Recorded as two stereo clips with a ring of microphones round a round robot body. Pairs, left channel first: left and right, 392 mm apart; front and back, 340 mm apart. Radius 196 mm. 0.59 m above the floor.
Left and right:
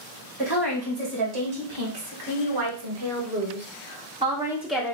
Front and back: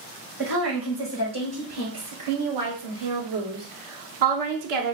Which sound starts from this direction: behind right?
A woman speaking, at 0.4 s.